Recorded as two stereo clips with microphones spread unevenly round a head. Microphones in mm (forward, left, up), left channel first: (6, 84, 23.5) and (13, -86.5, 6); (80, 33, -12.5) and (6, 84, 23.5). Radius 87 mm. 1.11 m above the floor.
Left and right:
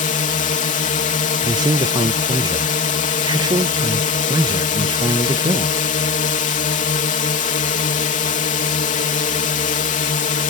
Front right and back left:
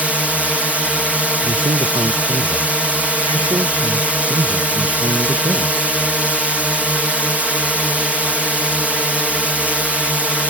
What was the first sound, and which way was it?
A drone, 55° left.